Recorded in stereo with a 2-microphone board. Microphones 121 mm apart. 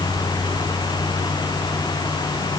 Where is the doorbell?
No doorbell in this recording.